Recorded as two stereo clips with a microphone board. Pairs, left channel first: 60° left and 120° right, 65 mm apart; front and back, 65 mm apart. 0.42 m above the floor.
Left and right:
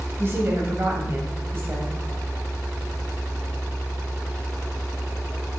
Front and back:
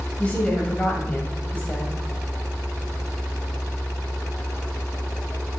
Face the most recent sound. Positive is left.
turn(degrees=-70)